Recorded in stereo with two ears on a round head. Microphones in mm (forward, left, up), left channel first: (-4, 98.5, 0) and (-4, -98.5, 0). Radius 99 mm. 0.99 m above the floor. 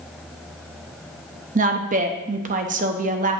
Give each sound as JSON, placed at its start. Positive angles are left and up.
{"t": 1.6, "sound": "a woman speaking", "side_deg": -35, "distance_m": 0.9}